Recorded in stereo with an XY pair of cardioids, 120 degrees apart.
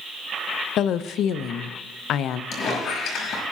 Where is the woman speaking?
65° left, 0.6 m.